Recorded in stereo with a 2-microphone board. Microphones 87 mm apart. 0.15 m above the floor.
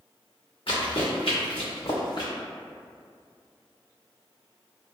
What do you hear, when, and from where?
0.7 s running footsteps: 80° left, 1.3 m; by 2.3 s 55° left (ahead or behind), 0.9 m